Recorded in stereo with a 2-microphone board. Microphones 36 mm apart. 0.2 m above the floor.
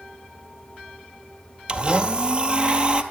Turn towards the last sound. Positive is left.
turn(degrees=-30)  # may be behind; listen again after turning